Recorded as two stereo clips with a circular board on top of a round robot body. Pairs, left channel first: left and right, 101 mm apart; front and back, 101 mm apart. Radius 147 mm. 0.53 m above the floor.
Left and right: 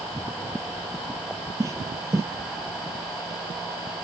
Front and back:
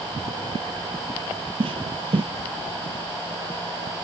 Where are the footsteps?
150° right.